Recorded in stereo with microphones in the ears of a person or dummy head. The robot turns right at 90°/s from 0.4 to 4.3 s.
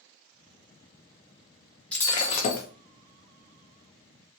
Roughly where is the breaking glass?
Ahead.